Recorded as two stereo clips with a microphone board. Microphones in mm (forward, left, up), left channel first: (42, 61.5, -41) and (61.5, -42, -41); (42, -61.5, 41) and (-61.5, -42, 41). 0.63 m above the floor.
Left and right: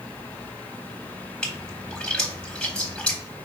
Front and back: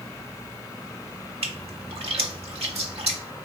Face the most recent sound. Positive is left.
turn(degrees=180)